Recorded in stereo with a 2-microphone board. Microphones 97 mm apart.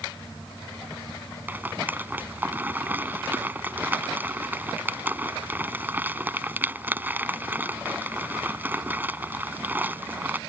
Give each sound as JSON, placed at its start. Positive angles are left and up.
{"t": 1.5, "sound": "a rattle", "side_deg": -20}